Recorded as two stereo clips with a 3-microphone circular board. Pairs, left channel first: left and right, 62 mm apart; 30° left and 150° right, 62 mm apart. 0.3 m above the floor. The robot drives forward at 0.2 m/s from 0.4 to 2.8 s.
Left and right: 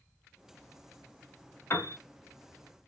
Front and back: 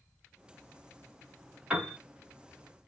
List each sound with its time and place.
1.7 s a piano: 135° left, 1.5 m